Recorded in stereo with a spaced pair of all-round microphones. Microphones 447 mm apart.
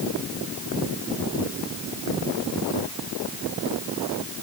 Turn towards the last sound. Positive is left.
No sound to turn to.